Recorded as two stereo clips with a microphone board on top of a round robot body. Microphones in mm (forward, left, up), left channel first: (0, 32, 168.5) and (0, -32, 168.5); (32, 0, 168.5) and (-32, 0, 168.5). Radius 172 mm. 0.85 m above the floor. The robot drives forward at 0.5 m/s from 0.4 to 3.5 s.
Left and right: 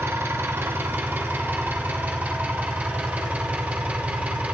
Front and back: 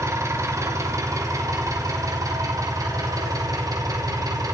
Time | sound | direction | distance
0.0 | an engine running | 140° right | 1.8 m